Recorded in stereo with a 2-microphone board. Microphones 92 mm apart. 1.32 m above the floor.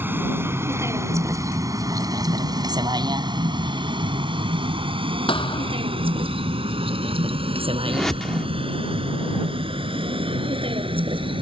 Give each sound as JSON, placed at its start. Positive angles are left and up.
{"t": 0.0, "sound": "a vehicle", "side_deg": -25}
{"t": 5.3, "sound": "a thud", "side_deg": 70}
{"t": 7.9, "sound": "a whoosh", "side_deg": 5}